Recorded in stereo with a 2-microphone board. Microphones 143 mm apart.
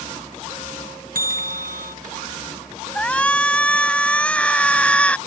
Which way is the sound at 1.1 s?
75° right (ahead or behind).